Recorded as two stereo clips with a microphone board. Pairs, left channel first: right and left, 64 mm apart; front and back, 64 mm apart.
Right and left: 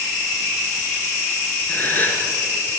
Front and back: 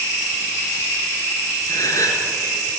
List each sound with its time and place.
1.7 s a gasp: 30° right, 3.5 m